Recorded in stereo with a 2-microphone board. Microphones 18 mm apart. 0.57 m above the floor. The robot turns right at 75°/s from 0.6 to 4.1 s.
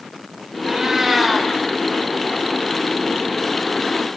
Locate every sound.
0.7 s a cat meowing: 45° right, 1.2 m; by 1.5 s 20° left, 1.2 m